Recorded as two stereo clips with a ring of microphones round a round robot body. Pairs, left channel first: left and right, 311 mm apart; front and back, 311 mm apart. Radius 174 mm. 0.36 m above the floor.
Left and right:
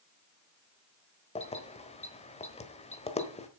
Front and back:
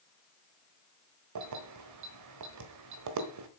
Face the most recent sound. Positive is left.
turn(degrees=160)